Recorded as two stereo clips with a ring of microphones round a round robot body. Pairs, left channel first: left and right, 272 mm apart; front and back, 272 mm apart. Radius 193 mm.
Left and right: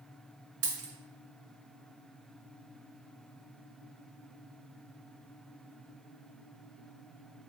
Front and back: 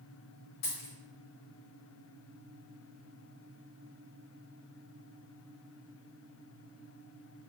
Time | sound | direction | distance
0.6 | a dropped coin | 60° right | 1.1 m